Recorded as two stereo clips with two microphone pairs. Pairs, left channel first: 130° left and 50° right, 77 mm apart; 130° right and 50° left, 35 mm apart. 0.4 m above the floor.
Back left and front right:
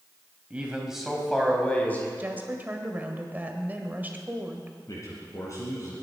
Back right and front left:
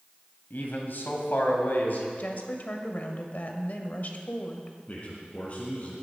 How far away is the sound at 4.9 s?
About 3.5 m.